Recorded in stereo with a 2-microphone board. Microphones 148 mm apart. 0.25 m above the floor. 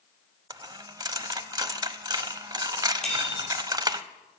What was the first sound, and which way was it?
A dropped coin, 25° right (ahead or behind).